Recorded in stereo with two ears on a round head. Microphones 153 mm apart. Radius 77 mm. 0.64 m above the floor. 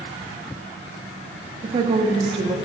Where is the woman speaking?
30° right (ahead or behind), 0.6 m.